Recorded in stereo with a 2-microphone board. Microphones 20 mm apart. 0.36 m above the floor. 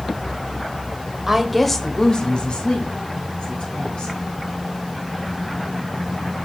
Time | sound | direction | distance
1.3 | a woman speaking | 10° right (ahead or behind) | 1.2 m